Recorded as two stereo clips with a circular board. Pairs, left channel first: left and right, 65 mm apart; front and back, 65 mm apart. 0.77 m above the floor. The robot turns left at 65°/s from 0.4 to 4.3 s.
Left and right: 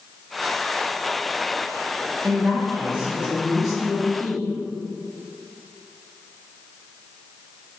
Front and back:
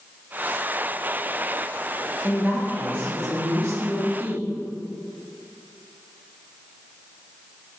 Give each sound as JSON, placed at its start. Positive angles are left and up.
{"t": 2.2, "sound": "a woman speaking", "azimuth_deg": -90, "distance_m": 1.2}